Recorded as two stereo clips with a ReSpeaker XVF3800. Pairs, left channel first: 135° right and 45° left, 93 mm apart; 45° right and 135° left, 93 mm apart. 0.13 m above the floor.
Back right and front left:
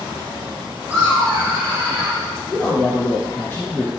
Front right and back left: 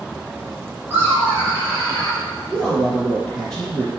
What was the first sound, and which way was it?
Laughter, 100° left.